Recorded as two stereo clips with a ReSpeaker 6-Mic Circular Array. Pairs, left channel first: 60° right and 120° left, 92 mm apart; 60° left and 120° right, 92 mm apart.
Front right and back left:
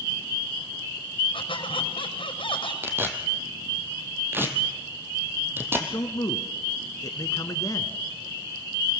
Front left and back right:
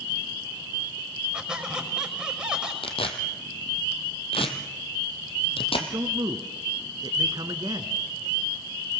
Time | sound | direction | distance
1.3 | a squeak | 40° right | 5.5 m
2.8 | tearing paper | 55° left | 2.5 m
5.8 | a man speaking | 95° right | 1.9 m